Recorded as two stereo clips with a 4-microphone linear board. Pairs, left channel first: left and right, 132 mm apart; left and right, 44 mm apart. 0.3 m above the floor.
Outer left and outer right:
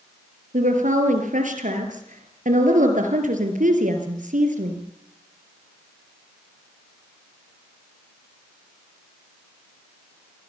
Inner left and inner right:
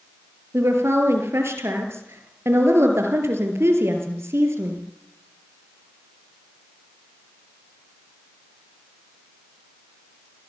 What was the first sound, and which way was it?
A woman speaking, 75° right (ahead or behind).